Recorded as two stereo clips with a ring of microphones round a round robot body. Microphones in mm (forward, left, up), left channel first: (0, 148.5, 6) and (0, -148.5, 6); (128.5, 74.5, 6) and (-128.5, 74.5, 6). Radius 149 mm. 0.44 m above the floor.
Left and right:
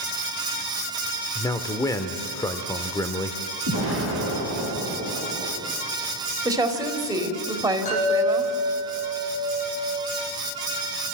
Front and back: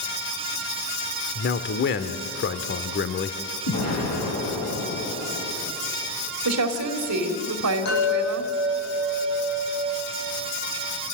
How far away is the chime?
About 9 m.